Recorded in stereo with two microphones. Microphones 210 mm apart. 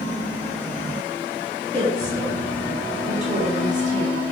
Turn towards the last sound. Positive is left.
turn(degrees=-35)  # may be behind; listen again after turning